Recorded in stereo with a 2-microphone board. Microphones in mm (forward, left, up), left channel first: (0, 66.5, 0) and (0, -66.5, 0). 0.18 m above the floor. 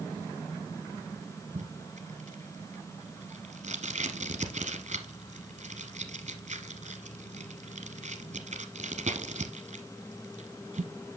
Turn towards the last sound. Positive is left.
turn(degrees=-60)  # may be behind; listen again after turning